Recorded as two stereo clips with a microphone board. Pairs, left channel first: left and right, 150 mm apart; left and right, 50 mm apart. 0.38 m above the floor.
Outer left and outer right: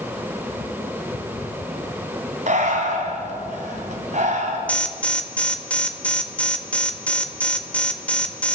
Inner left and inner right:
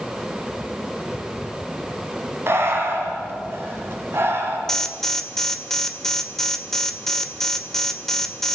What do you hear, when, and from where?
2.5 s breathing: 55° right (ahead or behind), 3.5 m
4.7 s an alarm: 10° left (ahead or behind), 1.9 m